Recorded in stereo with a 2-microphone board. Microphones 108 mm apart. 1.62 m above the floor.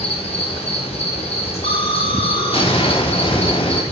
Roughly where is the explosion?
Left.